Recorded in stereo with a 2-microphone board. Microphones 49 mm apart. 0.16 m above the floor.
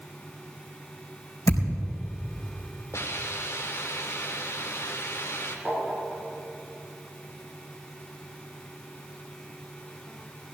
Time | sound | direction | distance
1.5 | a thud | 80° left | 4 m
2.9 | a hiss | 65° left (ahead or behind) | 2.5 m
5.7 | tapping | 25° right (ahead or behind) | 4 m